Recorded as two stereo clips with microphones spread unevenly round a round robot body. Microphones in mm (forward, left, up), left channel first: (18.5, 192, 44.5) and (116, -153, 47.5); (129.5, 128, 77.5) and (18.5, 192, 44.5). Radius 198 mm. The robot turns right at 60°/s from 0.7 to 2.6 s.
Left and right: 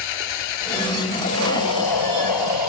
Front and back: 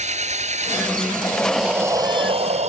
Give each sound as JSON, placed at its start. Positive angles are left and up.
{"t": 0.0, "sound": "an engine running", "azimuth_deg": 120}
{"t": 1.2, "sound": "breathing", "azimuth_deg": 45}